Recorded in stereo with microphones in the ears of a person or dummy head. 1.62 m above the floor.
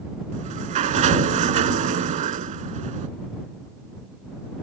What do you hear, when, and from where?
0.3 s a sliding door: 40° right (ahead or behind)